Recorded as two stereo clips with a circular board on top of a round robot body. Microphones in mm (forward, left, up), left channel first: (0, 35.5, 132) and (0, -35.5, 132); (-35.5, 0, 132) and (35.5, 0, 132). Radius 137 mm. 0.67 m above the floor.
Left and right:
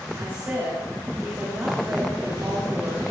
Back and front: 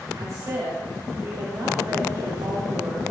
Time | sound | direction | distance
0.1 | a woman speaking | 35° right | 2 m